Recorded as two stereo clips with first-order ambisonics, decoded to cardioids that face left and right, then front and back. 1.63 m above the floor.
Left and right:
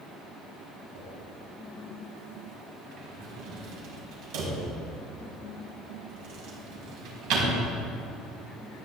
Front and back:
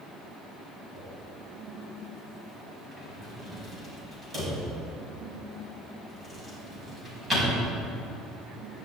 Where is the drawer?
105° right, 4.5 m.